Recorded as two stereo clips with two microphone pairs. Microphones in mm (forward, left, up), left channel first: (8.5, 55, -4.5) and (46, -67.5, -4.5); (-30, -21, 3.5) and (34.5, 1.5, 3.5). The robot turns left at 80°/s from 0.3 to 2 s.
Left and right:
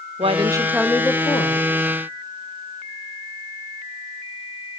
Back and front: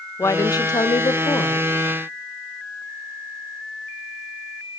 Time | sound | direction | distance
0.2 | a woman speaking | 115° right | 0.9 m